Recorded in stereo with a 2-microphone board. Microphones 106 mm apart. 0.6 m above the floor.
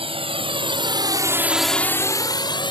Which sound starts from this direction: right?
A drone, at 0.0 s.